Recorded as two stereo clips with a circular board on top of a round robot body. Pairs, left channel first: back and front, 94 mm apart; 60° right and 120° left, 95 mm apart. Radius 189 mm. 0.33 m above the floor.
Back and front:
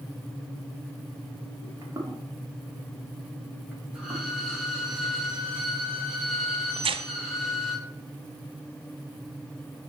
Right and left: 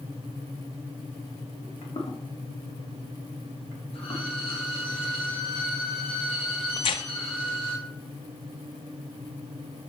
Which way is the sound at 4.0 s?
85° right.